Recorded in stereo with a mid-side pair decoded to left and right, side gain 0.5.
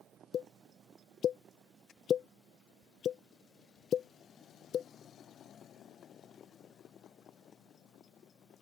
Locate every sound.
0.3 s a pop: 55° left